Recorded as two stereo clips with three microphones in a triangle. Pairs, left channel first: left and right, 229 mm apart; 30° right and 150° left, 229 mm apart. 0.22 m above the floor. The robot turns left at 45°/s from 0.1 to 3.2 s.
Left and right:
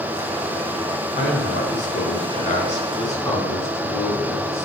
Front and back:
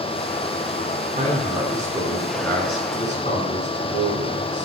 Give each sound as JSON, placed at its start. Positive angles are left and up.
{"t": 1.1, "sound": "a man speaking", "azimuth_deg": 105, "distance_m": 2.5}